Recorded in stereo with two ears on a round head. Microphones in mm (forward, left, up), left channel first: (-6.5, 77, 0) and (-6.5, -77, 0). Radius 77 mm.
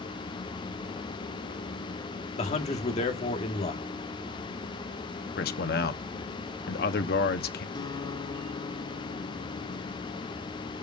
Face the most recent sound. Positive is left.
turn(degrees=25)  # may be behind; listen again after turning